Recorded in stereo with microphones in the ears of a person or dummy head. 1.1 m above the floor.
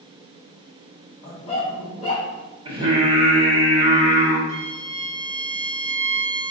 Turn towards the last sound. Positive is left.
turn(degrees=-70)  # may be behind; listen again after turning